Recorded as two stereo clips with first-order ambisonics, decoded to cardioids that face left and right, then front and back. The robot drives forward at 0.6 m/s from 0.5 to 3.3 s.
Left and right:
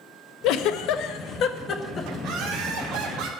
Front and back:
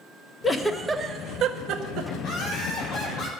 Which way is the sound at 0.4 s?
75° left.